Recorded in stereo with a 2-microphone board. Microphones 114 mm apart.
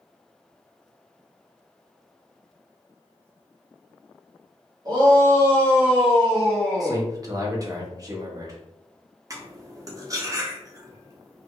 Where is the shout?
40° right (ahead or behind), 1.4 m; by 7.0 s 10° left (ahead or behind), 1.4 m.